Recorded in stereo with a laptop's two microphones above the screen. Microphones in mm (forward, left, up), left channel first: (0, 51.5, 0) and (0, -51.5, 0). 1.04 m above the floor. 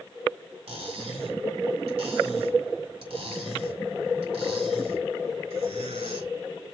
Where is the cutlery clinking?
70° right (ahead or behind), 3.5 m.